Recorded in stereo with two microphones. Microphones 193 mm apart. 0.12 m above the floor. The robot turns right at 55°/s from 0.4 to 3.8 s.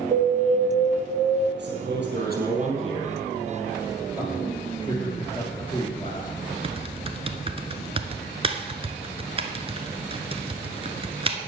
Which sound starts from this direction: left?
A man speaking, at 4.2 s.